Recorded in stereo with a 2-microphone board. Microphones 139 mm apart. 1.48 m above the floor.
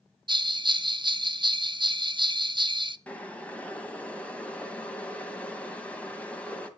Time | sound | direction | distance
0.3 | a bell | 35° right (ahead or behind) | 0.7 m
3.1 | boiling | 10° left (ahead or behind) | 2.0 m